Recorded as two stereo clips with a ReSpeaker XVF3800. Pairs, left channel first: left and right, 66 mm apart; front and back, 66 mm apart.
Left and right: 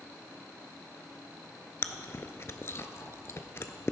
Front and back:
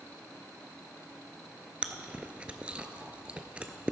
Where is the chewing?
115° left, 0.7 m.